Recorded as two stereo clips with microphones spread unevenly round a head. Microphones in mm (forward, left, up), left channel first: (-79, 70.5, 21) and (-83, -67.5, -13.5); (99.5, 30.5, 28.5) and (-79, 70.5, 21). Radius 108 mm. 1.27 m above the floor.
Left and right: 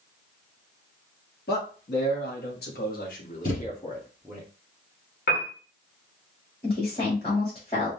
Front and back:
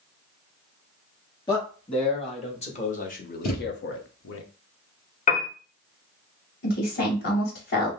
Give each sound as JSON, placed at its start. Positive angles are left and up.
{"t": 1.5, "sound": "a man speaking", "azimuth_deg": 55, "distance_m": 2.5}
{"t": 3.4, "sound": "a thud", "azimuth_deg": 20, "distance_m": 3.5}
{"t": 5.3, "sound": "a piano", "azimuth_deg": 35, "distance_m": 1.2}
{"t": 6.6, "sound": "a woman speaking", "azimuth_deg": 20, "distance_m": 2.5}